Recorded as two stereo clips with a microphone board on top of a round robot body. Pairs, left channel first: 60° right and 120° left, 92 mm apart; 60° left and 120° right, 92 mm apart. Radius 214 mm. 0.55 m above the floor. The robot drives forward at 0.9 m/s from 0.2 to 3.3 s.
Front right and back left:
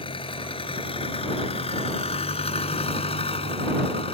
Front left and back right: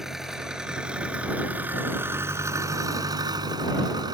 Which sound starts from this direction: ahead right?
An engine running, at 0.0 s.